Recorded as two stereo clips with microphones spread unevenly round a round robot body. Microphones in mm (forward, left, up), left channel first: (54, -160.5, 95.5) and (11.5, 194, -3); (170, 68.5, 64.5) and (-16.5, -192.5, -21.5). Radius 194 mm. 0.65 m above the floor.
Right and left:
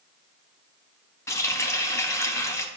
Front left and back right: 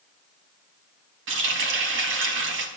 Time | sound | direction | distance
1.3 | a running tap | 170° right | 1.1 m